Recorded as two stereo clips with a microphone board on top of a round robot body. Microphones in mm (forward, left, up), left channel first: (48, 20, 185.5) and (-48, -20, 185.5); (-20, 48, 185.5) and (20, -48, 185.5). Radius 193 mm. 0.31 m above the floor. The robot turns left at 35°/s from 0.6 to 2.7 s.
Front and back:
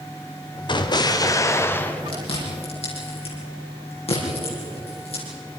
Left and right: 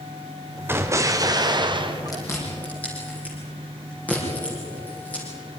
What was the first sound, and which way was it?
An explosion, 5° right.